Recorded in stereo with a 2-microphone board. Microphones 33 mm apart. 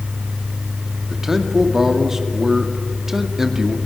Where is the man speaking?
10° right (ahead or behind), 2.5 m.